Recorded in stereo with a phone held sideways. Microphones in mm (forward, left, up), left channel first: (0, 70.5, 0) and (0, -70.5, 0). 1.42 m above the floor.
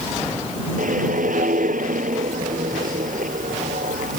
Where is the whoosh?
85° right.